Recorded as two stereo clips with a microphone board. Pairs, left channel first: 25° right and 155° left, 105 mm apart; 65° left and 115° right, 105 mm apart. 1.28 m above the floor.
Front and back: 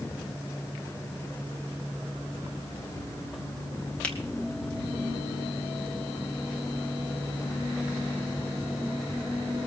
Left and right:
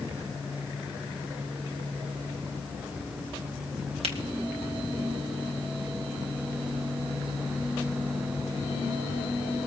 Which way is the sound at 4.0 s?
100° right.